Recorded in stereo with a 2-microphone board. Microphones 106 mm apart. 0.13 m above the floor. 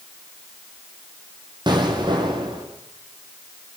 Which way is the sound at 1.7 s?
45° right (ahead or behind).